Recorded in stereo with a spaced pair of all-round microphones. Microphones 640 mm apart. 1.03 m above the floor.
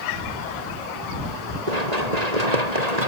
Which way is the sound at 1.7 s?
85° right.